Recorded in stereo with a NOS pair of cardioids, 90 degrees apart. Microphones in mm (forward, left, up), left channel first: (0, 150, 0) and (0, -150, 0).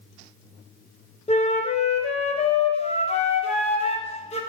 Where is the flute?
20° left, 0.5 m.